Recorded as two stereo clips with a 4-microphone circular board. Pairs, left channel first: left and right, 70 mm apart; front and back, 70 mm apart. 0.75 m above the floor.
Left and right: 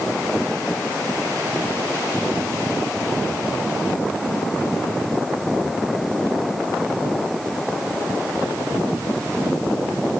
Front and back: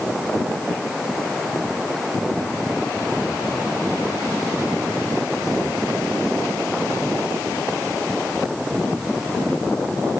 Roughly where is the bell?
I don't hear a bell.